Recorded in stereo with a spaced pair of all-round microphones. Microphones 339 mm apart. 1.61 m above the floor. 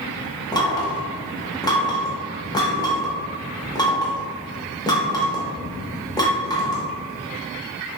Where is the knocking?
10° left (ahead or behind), 0.7 m.